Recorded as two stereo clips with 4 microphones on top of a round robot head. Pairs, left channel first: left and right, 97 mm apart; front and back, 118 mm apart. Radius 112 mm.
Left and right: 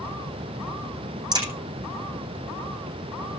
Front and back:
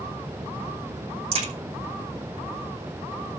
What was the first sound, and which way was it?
A crack, 130° right.